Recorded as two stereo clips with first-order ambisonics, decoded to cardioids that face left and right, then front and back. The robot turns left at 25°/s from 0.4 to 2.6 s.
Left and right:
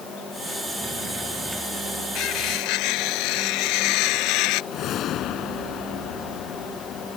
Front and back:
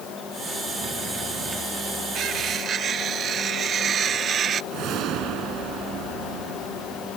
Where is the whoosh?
140° left.